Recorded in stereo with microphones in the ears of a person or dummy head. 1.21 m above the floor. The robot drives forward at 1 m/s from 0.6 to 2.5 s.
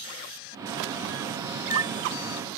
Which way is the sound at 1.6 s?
15° right (ahead or behind).